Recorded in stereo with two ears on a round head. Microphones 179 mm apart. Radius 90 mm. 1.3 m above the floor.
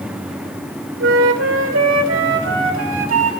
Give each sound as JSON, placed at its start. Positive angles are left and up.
{"t": 1.0, "sound": "a flute", "side_deg": -70, "distance_m": 2.5}